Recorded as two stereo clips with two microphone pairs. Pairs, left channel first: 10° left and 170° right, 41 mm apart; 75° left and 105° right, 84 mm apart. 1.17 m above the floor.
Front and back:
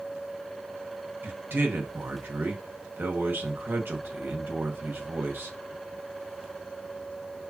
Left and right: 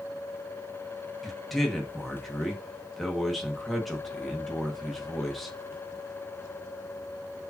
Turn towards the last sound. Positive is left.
turn(degrees=160)